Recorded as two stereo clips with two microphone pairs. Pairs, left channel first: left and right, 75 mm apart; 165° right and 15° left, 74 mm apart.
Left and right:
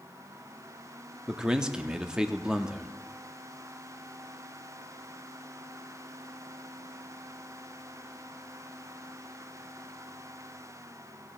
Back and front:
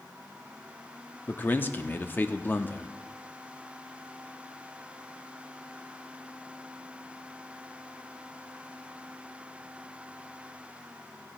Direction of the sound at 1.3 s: 155° right.